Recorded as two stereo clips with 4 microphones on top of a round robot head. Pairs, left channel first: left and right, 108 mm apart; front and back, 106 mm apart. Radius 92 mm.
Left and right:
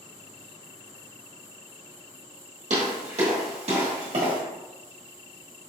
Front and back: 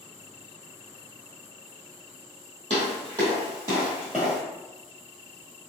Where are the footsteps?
125° right, 1.7 m; by 4.4 s 85° right, 1.5 m.